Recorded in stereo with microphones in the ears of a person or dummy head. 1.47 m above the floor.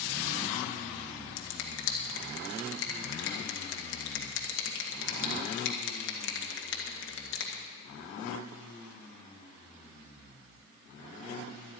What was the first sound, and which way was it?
A finger snap, 70° left (ahead or behind).